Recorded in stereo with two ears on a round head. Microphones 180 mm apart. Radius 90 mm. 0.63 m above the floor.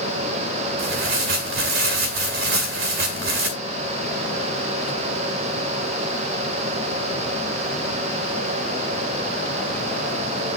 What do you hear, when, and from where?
0.8 s tearing paper: 70° right (ahead or behind), 1.9 m